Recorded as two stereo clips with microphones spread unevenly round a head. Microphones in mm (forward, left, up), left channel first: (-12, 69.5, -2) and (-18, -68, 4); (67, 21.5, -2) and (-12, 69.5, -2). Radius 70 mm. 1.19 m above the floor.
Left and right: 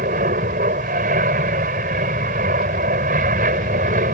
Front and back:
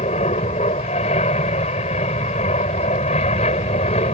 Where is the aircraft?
60° right.